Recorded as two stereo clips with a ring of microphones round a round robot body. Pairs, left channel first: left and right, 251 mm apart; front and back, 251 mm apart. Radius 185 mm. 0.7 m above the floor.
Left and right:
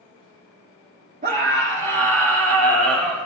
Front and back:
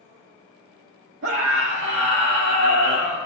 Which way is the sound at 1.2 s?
145° right.